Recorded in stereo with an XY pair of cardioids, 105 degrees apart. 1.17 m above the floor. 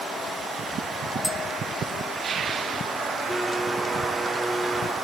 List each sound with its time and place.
1.2 s tapping: 10° left, 2 m
3.3 s a blender: straight ahead, 2.5 m